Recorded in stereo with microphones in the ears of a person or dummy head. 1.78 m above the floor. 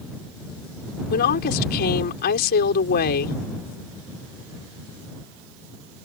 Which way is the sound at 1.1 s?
50° left (ahead or behind).